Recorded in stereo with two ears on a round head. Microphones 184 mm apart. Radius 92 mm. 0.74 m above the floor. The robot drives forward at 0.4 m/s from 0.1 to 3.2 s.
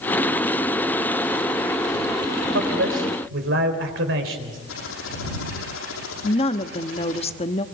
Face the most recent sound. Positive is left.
turn(degrees=30)  # may be behind; listen again after turning